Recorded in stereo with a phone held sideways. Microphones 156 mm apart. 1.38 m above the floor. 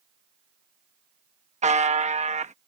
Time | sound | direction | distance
1.6 | a buzzer | 50° right (ahead or behind) | ?